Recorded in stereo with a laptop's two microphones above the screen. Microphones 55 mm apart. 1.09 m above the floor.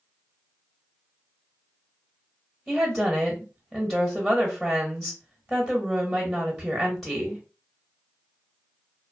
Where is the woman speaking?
Centre (ahead or behind), 1.0 m.